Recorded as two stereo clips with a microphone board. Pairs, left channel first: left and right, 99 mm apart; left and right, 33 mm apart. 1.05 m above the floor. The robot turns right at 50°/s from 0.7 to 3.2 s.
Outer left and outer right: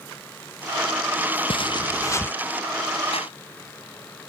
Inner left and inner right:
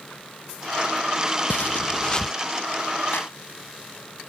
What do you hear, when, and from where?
1.5 s footsteps: 120° left; by 2.3 s 160° left
3.1 s a clap: 80° left